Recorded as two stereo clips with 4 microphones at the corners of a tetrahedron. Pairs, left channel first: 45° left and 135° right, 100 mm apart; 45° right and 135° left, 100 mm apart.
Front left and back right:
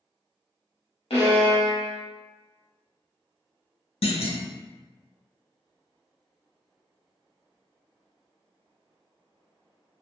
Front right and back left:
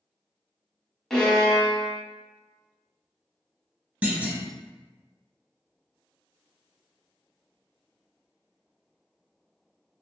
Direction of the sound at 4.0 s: 60° left.